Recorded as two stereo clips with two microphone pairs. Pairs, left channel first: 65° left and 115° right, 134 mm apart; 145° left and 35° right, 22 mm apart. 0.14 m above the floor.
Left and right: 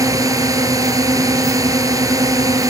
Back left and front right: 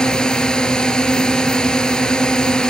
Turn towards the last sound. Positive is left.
turn(degrees=-175)